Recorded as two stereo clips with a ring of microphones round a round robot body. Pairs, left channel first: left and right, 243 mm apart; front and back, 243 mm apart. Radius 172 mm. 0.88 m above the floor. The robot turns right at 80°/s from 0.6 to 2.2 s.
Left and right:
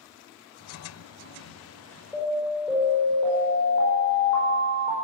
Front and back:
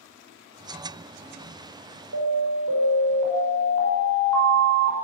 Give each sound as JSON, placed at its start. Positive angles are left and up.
{"t": 2.1, "sound": "an alarm", "azimuth_deg": -175, "distance_m": 5.0}